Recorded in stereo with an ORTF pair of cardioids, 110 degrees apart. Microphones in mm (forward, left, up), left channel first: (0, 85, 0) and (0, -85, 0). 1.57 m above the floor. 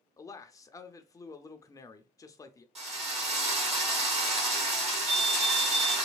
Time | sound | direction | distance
0.2 | a man speaking | 20° left | 0.6 m
2.8 | a drill | 35° right | 1.8 m
5.1 | a fire alarm | 55° right | 1.6 m